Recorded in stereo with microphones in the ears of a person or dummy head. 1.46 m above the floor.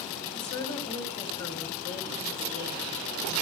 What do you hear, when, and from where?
0.3 s a woman speaking: 35° left (ahead or behind), 6 m